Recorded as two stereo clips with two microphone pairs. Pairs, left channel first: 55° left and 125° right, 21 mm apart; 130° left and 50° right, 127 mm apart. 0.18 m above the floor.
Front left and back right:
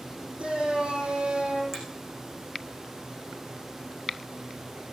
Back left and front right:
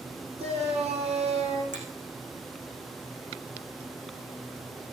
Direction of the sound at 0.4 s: 85° right.